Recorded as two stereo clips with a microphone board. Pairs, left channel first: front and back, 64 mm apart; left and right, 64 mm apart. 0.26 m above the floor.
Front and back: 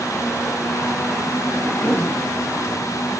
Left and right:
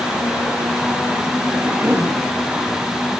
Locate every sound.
1.6 s a cough: 45° right, 2.5 m